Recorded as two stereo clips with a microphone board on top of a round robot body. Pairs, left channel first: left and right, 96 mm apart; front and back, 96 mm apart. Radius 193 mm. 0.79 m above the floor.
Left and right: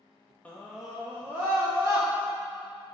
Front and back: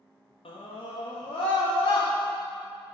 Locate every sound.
0.5 s a scream: 15° left, 1.5 m; by 2.1 s 30° right, 2 m